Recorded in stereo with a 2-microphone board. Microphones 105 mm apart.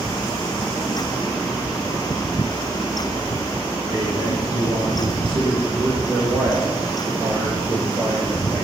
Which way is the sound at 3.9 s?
60° right (ahead or behind).